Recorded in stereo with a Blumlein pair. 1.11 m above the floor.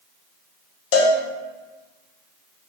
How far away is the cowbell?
About 0.6 m.